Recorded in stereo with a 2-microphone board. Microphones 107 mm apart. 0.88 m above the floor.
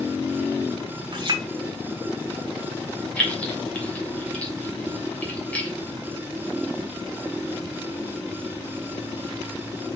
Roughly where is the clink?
Right.